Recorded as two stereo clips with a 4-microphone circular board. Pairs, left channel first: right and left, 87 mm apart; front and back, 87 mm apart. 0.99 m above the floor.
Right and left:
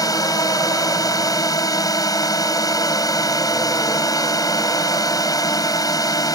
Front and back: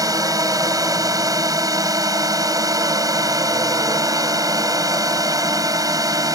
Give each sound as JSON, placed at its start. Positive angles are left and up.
{"t": 0.0, "sound": "a drone", "azimuth_deg": -135}